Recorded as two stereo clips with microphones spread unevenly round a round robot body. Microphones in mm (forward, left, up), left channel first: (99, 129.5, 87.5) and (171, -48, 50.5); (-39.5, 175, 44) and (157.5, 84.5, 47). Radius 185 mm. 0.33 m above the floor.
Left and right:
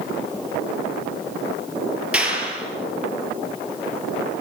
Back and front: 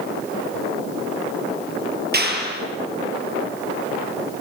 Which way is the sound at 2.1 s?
15° left.